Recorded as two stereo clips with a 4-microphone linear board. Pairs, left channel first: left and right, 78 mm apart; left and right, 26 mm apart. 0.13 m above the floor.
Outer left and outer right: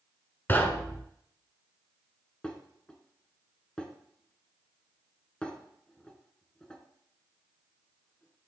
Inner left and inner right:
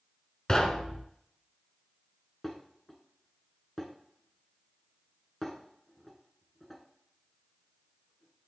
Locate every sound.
0.5 s knocking: 25° left (ahead or behind), 0.8 m
2.4 s dishes clattering: 10° left (ahead or behind), 1.1 m